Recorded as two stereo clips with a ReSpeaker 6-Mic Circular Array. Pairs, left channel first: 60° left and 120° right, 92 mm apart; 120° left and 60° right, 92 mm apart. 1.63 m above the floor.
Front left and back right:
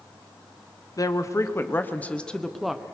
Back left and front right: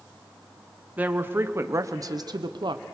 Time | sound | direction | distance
1.0 | a woman speaking | 10° left | 1.3 m